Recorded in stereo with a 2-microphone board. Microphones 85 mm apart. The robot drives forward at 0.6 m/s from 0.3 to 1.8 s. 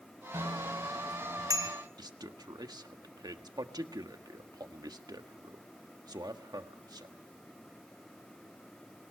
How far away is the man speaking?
About 1.5 m.